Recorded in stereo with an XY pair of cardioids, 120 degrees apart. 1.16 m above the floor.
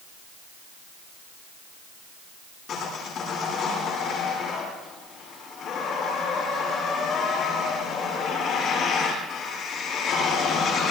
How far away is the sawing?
About 9.5 m.